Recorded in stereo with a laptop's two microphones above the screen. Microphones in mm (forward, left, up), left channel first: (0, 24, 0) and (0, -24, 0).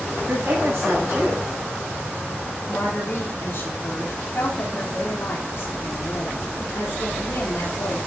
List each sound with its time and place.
0.3 s a woman speaking: 55° right (ahead or behind), 6.5 m
2.7 s a woman speaking: 55° left (ahead or behind), 3 m